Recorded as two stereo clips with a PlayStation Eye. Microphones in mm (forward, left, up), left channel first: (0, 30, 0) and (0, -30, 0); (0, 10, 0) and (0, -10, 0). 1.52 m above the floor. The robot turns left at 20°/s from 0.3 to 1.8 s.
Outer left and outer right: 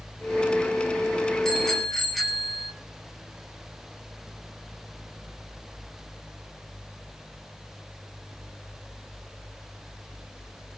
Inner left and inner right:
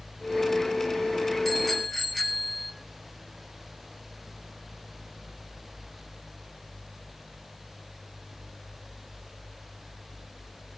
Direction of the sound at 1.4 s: 10° left (ahead or behind).